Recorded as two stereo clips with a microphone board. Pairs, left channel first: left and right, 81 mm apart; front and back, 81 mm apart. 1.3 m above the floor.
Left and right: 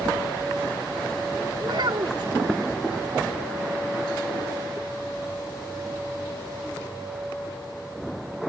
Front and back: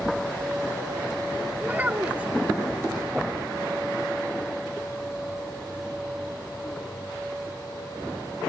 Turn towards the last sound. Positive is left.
turn(degrees=-110)